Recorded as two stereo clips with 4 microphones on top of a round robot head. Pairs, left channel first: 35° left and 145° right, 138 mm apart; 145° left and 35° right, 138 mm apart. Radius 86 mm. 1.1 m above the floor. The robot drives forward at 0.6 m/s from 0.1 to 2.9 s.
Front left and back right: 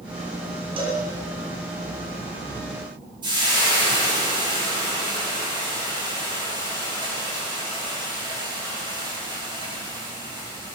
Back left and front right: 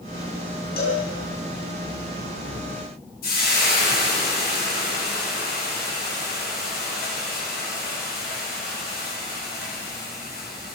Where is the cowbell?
165° left, 4.5 m.